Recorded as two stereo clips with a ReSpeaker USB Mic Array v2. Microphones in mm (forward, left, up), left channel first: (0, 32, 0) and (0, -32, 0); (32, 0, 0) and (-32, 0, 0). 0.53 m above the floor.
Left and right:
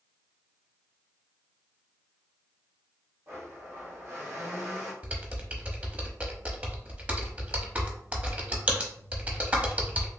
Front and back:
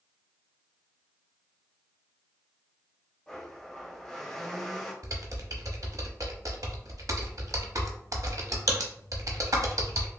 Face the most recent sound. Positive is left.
turn(degrees=-155)